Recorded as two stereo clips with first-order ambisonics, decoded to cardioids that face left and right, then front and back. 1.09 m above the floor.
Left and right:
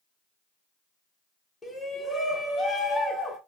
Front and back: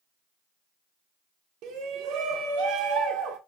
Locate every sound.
1.6 s a shout: 165° left, 0.9 m